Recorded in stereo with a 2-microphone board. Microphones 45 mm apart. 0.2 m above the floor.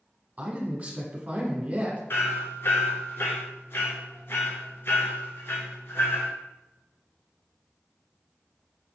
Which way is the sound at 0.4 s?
35° right (ahead or behind).